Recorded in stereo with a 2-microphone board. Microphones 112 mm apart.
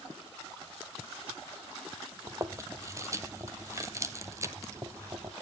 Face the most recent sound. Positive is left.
turn(degrees=-25)  # may be behind; listen again after turning